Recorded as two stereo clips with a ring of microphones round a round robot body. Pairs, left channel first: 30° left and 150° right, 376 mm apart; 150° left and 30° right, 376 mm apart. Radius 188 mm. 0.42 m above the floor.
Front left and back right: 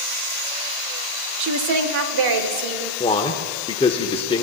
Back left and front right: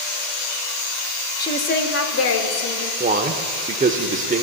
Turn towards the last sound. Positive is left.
turn(degrees=-15)